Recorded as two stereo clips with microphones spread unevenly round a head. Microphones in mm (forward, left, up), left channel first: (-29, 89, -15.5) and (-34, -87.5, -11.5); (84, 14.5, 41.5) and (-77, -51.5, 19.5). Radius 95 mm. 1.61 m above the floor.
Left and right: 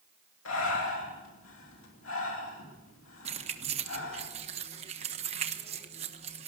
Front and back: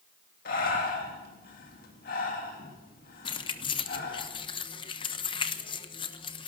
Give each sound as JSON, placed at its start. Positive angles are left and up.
{"t": 0.5, "sound": "breathing", "azimuth_deg": 65, "distance_m": 3.0}
{"t": 3.2, "sound": "keys jangling", "azimuth_deg": -35, "distance_m": 1.1}